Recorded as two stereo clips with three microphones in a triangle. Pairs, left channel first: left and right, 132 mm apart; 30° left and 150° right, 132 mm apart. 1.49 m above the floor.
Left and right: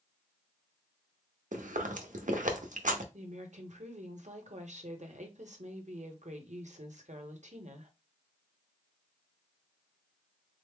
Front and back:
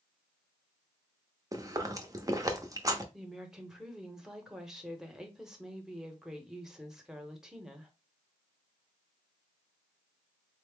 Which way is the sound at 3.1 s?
65° right.